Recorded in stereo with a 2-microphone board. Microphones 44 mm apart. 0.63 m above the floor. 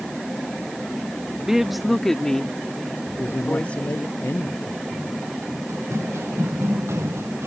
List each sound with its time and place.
1.4 s a woman speaking: 10° right (ahead or behind); by 4.1 s 30° left (ahead or behind)
3.1 s a man speaking: 65° left (ahead or behind)
5.7 s running footsteps: 75° right (ahead or behind)